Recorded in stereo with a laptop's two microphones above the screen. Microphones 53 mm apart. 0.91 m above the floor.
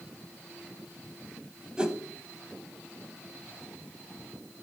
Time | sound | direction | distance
1.8 | a whoosh | 15° right (ahead or behind) | 0.7 m